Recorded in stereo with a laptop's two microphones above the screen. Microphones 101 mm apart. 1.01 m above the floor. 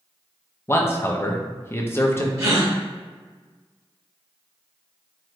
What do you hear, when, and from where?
0.7 s a man speaking: 25° left (ahead or behind), 0.7 m
2.4 s a gasp: 35° right (ahead or behind), 1.0 m